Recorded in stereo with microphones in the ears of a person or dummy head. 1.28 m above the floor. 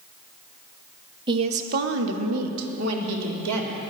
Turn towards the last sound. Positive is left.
turn(degrees=-80)